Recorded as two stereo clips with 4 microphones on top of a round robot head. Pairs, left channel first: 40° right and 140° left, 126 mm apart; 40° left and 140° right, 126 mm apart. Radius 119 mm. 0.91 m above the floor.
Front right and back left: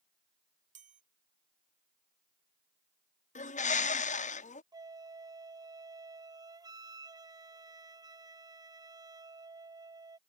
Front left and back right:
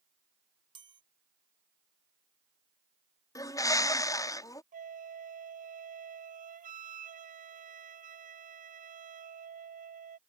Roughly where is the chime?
Behind.